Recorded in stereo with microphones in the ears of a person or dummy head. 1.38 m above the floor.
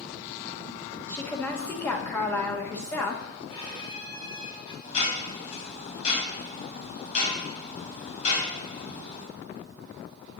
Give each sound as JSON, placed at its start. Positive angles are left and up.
{"t": 1.1, "sound": "a woman speaking", "side_deg": 10, "distance_m": 1.2}
{"t": 3.5, "sound": "a violin", "side_deg": 30, "distance_m": 2.0}
{"t": 4.8, "sound": "ticking", "side_deg": 40, "distance_m": 3.0}